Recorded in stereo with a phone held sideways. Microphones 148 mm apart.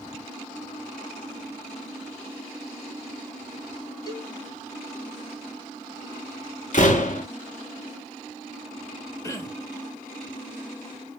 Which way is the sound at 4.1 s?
25° left (ahead or behind).